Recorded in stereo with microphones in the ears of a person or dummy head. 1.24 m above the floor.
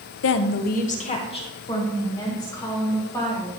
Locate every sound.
0.2 s a woman speaking: 60° left (ahead or behind), 0.6 m; by 3.5 s 15° left (ahead or behind), 3 m